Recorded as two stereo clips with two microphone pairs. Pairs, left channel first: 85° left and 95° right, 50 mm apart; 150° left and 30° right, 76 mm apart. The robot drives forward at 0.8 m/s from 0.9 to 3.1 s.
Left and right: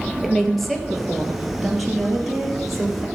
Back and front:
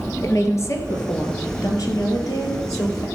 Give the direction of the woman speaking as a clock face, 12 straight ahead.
6 o'clock.